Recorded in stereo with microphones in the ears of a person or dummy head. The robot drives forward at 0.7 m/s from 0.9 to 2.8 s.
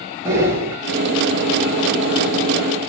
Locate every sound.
0.2 s breathing: 10° right (ahead or behind), 1.1 m